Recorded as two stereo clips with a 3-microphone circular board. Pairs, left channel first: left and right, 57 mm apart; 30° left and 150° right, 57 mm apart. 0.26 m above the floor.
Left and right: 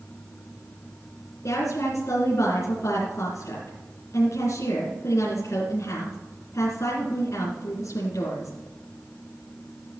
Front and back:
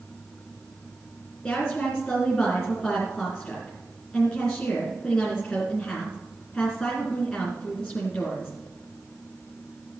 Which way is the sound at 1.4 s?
105° left.